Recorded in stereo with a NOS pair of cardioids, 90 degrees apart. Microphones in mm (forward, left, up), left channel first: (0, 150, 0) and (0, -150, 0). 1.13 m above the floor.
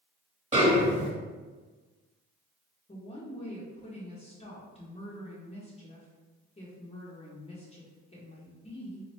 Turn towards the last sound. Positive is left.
turn(degrees=20)